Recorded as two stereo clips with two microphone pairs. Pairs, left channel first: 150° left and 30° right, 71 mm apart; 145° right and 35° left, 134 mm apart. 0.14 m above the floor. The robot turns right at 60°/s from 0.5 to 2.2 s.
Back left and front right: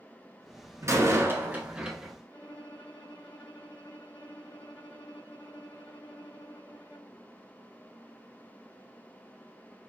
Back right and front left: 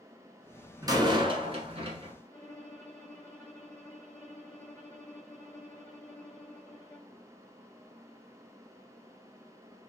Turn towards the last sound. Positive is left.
turn(degrees=140)